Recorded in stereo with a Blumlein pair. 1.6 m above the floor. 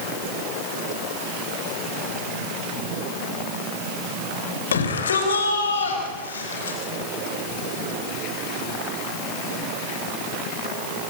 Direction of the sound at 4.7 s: 65° left.